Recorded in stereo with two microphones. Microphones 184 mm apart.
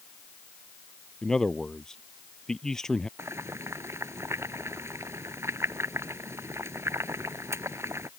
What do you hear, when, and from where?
1.2 s a man speaking: 5° left (ahead or behind)
3.2 s boiling: 15° right (ahead or behind)